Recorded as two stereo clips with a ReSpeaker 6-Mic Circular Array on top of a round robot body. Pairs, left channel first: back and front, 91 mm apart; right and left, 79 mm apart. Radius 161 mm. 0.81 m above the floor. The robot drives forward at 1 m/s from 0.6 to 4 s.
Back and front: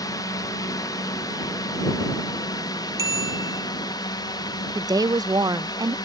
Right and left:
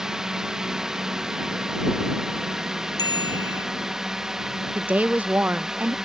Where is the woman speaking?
25° left.